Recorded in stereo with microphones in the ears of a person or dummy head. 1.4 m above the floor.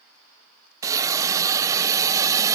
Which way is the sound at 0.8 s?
15° right (ahead or behind).